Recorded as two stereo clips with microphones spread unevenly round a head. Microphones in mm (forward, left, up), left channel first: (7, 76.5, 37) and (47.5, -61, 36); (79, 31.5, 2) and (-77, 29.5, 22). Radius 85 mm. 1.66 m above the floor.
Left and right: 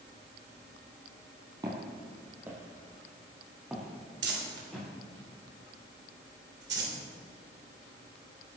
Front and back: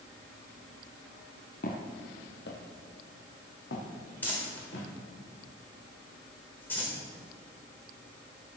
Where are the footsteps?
15° right, 2 m; by 4.9 s 15° left, 6 m.